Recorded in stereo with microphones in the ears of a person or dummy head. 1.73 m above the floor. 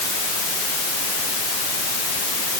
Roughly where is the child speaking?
I don't hear a child speaking.